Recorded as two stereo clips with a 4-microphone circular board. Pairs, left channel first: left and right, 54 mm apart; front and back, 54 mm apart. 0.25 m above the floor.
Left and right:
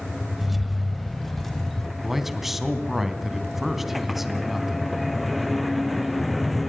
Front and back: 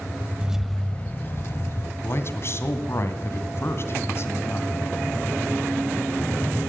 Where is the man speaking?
5° right, 2.5 m.